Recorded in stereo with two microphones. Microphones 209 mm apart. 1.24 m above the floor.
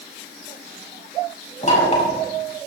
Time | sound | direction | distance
1.6 | knocking | 35° left (ahead or behind) | 6 m